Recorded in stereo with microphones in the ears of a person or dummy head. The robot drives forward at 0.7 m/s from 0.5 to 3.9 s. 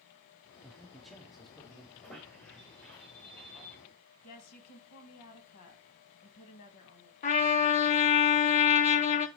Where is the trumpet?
35° left (ahead or behind), 0.6 m.